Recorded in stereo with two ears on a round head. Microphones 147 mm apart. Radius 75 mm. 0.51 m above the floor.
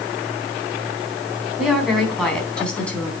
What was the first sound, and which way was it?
A woman speaking, centre (ahead or behind).